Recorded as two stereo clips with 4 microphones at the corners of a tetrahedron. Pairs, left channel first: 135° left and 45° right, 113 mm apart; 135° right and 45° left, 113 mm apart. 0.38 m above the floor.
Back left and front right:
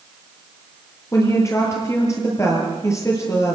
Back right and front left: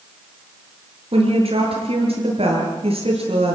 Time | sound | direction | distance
1.1 | a woman speaking | 75° left | 8 m